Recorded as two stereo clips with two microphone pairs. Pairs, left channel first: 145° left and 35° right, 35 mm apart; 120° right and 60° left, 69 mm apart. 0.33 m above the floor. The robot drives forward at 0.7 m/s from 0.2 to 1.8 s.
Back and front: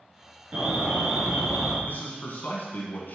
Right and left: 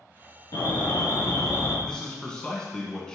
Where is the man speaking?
165° left, 2.5 m.